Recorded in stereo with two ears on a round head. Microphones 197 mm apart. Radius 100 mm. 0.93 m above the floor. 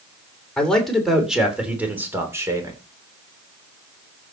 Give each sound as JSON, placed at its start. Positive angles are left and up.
{"t": 0.6, "sound": "a man speaking", "side_deg": 5, "distance_m": 3.5}